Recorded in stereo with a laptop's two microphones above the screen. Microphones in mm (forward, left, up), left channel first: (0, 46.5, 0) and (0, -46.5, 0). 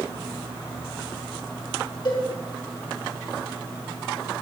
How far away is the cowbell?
About 4.5 m.